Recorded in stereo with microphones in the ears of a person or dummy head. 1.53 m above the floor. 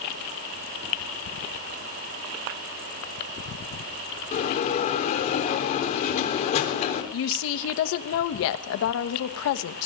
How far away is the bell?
About 3.5 m.